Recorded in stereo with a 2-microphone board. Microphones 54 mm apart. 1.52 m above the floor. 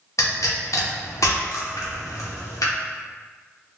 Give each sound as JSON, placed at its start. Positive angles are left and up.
{"t": 0.2, "sound": "a pop", "side_deg": 70, "distance_m": 0.7}